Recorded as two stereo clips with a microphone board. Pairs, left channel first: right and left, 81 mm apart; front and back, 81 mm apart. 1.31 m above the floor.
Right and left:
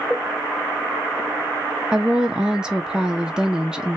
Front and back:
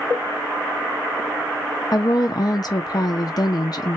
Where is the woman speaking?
10° left, 0.5 m.